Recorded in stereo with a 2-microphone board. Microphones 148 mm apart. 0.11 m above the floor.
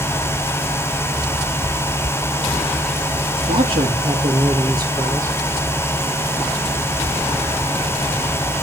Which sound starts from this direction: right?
A man speaking, at 3.4 s.